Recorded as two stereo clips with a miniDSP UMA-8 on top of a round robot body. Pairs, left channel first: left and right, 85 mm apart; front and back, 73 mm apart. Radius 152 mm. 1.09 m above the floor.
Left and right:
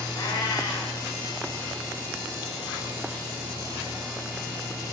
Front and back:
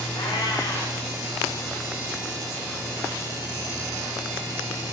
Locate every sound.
0.1 s a cat meowing: 50° left, 7 m